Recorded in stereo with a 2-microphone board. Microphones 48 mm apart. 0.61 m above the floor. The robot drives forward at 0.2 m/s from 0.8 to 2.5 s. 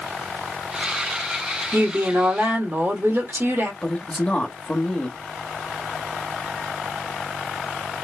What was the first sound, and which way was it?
A woman speaking, 55° right (ahead or behind).